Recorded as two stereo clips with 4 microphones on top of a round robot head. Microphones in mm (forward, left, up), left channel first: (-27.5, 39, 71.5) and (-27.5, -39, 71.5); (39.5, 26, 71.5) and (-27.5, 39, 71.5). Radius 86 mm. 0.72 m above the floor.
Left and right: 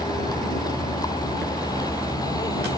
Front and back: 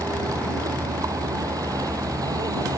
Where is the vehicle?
130° left; by 2.8 s 135° left.